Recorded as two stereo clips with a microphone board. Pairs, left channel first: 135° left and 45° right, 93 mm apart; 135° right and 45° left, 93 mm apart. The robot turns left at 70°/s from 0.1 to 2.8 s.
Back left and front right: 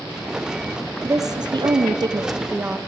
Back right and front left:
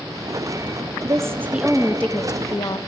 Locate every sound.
1.0 s a woman speaking: 5° left, 0.6 m; by 2.8 s 115° right, 0.6 m